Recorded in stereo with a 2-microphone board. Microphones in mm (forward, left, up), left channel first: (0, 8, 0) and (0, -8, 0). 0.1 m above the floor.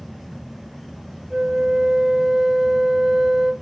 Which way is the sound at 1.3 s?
25° right (ahead or behind).